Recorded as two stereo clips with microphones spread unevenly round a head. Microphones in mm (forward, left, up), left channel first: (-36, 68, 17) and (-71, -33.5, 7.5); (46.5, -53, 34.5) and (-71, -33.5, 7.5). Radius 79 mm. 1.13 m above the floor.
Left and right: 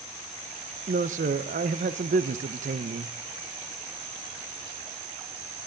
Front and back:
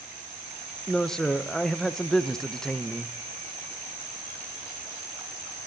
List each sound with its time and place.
0.9 s a man speaking: 95° right, 0.5 m